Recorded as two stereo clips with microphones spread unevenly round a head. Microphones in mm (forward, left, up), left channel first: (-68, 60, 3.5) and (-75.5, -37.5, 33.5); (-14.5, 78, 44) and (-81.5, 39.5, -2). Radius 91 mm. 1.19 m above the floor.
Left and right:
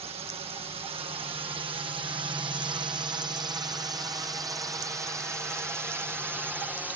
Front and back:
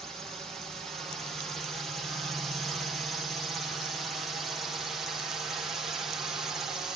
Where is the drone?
90° right; by 7.0 s 175° left.